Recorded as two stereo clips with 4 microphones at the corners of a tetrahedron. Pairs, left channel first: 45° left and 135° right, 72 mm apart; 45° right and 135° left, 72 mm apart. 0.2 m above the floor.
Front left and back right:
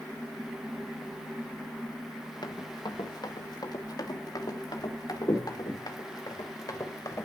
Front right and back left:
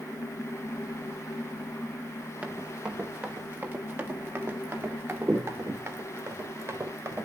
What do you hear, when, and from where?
2.4 s running footsteps: 65° left, 2 m; by 7.3 s 85° left, 4.5 m